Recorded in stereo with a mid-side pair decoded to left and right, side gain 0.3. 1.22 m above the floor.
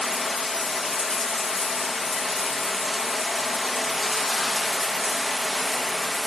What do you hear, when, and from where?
0.0 s running water: 45° left, 1.1 m